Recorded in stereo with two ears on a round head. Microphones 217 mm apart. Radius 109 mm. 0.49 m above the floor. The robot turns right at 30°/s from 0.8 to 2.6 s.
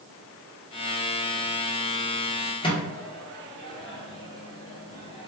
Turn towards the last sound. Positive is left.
turn(degrees=20)  # may be behind; listen again after turning